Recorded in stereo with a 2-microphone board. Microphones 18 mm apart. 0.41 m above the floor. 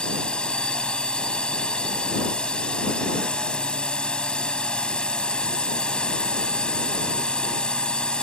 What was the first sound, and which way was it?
A drone, 60° left (ahead or behind).